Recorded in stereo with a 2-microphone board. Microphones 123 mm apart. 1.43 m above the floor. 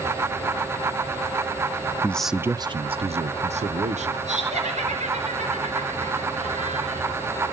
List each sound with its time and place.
2.0 s a man speaking: 15° left (ahead or behind), 0.6 m; by 4.2 s 80° right, 1.6 m
4.3 s laughter: 80° right, 4.5 m